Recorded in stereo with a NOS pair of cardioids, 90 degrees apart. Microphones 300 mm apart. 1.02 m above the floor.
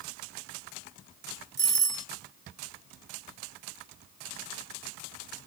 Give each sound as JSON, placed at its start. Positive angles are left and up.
{"t": 1.6, "sound": "a doorbell", "azimuth_deg": -50, "distance_m": 1.9}